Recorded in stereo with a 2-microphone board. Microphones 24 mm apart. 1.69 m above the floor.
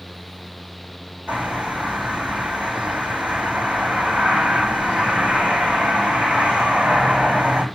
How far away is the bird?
About 4.5 m.